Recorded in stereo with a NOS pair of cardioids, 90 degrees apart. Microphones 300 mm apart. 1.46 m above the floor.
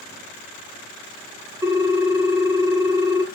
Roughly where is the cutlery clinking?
I don't hear cutlery clinking.